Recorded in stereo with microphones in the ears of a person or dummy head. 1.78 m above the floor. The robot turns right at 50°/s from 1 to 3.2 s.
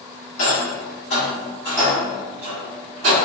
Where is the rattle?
45° left (ahead or behind), 1.1 m; by 3.1 s 45° right (ahead or behind), 1.1 m.